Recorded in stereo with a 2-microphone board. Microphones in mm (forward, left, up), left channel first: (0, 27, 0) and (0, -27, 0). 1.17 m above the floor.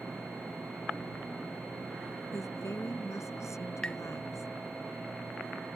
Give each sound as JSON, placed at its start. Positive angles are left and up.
{"t": 2.3, "sound": "a woman speaking", "side_deg": 70}
{"t": 3.8, "sound": "tapping", "side_deg": 20}